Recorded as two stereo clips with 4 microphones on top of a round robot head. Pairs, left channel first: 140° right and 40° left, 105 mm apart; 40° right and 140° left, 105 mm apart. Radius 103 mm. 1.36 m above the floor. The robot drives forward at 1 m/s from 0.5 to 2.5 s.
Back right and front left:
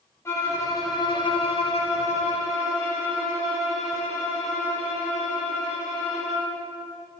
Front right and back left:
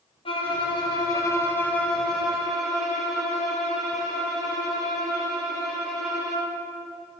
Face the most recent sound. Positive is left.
turn(degrees=-135)